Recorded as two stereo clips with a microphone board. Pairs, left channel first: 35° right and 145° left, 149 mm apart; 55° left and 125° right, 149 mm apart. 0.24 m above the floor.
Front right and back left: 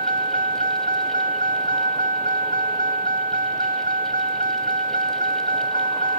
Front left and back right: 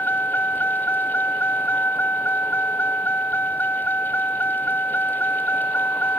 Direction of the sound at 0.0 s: 130° left.